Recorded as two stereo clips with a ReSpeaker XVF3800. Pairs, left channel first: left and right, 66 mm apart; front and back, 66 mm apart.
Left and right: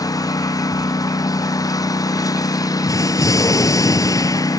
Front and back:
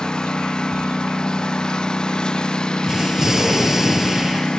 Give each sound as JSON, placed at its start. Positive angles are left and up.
{"t": 0.0, "sound": "a lawn mower", "azimuth_deg": 80}
{"t": 2.8, "sound": "an explosion", "azimuth_deg": 100}